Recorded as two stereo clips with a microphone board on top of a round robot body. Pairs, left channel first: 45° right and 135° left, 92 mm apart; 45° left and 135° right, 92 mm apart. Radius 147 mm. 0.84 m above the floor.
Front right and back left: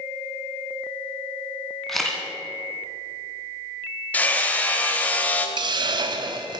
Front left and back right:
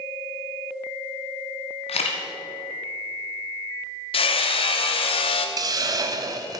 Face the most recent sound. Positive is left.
turn(degrees=175)